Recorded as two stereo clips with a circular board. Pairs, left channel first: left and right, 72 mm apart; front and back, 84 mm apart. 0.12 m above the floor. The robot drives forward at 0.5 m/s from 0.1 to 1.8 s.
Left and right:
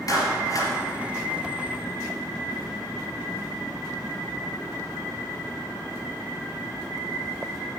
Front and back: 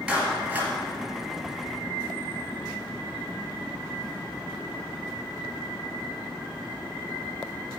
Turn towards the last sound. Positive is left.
turn(degrees=125)